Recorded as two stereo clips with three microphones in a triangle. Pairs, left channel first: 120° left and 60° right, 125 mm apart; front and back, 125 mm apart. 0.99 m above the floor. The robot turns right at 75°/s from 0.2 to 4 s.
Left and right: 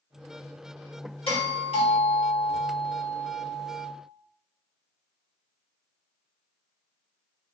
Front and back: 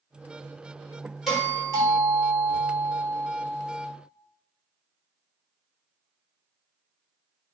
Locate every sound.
1.3 s a doorbell: 90° left, 1.6 m; by 3.9 s 70° right, 1.6 m